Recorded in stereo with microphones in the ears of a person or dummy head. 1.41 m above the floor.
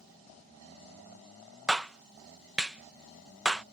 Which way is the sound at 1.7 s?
5° right (ahead or behind).